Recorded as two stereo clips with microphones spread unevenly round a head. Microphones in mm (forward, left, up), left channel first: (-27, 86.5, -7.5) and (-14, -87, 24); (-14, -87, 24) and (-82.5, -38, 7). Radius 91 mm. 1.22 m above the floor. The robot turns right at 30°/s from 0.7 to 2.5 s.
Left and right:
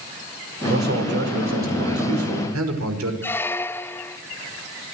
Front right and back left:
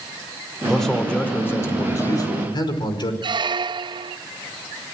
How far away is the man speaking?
About 5.5 m.